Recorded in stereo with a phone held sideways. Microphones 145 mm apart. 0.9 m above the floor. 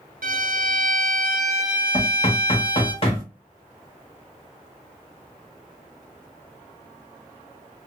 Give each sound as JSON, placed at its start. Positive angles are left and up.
{"t": 0.2, "sound": "a violin", "side_deg": -80, "distance_m": 0.7}
{"t": 1.9, "sound": "knocking", "side_deg": 40, "distance_m": 1.0}